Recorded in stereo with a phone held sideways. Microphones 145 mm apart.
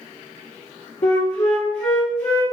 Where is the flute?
55° left (ahead or behind), 2 m.